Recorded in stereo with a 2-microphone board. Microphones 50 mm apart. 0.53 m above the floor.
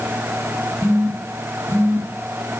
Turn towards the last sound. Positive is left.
turn(degrees=-70)  # may be behind; listen again after turning